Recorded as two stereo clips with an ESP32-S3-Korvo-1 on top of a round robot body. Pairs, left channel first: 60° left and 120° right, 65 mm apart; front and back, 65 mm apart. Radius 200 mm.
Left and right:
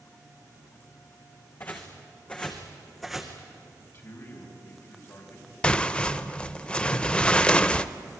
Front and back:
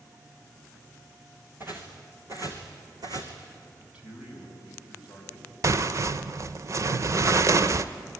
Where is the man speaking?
105° left, 4.5 m.